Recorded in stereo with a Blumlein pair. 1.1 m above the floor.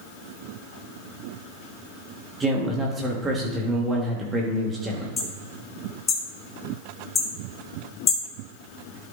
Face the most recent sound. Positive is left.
turn(degrees=20)